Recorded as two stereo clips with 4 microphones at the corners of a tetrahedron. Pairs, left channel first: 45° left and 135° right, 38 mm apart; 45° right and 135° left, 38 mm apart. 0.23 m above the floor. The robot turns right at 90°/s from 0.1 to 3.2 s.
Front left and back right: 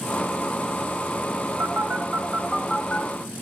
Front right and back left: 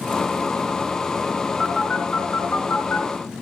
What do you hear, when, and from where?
1.6 s a phone buzzing: 135° right, 1.2 m; by 3.1 s straight ahead, 1.2 m